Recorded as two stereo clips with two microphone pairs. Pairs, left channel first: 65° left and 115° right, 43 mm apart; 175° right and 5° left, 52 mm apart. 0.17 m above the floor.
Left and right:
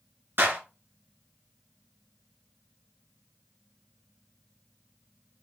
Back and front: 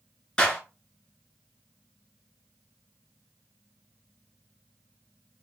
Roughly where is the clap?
Right.